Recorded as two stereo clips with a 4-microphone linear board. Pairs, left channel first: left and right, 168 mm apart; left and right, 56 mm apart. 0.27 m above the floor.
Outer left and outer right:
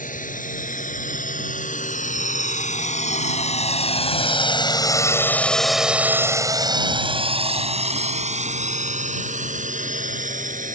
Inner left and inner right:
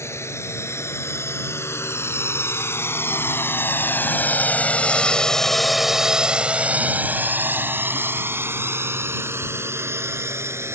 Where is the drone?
55° left (ahead or behind); by 10.8 s 50° right (ahead or behind).